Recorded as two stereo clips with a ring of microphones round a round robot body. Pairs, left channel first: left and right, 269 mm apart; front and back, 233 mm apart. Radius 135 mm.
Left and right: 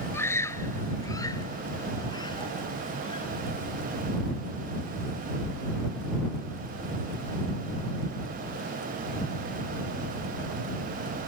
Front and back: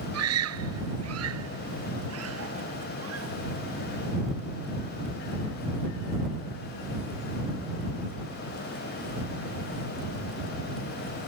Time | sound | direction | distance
0.1 | a scream | 170° left | ?